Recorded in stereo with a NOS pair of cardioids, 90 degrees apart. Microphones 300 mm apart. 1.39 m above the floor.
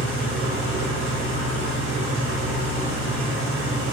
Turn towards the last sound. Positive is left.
turn(degrees=-40)